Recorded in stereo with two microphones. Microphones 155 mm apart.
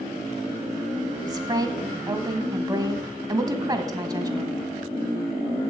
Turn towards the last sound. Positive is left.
turn(degrees=-25)  # may be behind; listen again after turning